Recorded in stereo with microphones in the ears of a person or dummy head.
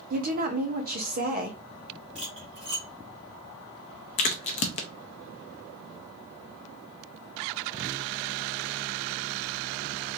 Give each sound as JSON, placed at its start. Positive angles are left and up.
{"t": 0.1, "sound": "a woman speaking", "side_deg": -45, "distance_m": 0.9}
{"t": 2.1, "sound": "cutlery clinking", "side_deg": -35, "distance_m": 1.7}
{"t": 4.2, "sound": "a crack", "side_deg": 35, "distance_m": 0.6}